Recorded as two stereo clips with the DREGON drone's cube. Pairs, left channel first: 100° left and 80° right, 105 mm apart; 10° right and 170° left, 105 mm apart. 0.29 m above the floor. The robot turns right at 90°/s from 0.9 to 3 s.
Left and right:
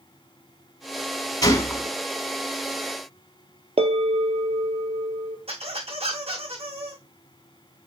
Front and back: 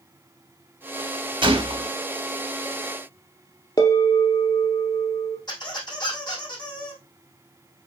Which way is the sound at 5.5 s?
60° right.